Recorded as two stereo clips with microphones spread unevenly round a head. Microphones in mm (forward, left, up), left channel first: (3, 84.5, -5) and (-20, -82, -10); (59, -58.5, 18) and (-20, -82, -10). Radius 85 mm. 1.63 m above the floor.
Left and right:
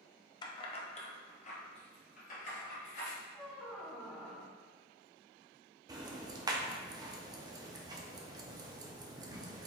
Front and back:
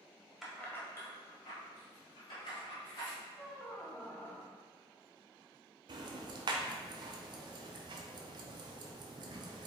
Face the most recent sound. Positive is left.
turn(degrees=-150)